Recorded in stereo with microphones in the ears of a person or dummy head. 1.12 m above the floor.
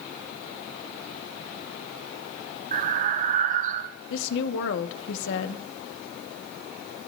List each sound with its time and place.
2.7 s breathing: 40° right (ahead or behind), 0.6 m
4.1 s a woman speaking: 85° left, 1.2 m